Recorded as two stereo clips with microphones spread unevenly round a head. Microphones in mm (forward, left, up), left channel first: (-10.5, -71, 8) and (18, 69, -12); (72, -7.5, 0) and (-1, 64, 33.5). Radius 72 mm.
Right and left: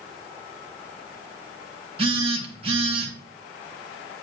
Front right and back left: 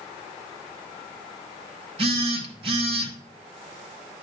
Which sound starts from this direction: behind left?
A phone buzzing, at 2.0 s.